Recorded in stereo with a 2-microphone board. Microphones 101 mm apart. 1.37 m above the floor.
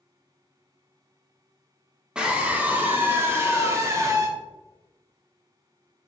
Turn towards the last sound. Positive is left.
turn(degrees=-35)  # may be behind; listen again after turning